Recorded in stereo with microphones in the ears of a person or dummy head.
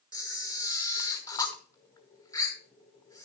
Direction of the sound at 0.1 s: 20° left (ahead or behind).